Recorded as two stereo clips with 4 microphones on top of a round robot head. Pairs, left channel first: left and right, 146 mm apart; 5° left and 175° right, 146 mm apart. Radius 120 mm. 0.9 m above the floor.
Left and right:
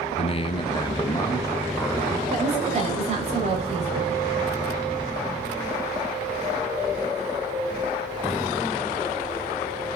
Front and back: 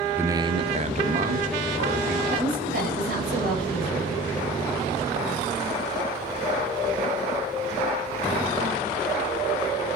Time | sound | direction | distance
0.2 | a man speaking | 110° left | 0.6 m
2.3 | a woman speaking | 145° right | 3.5 m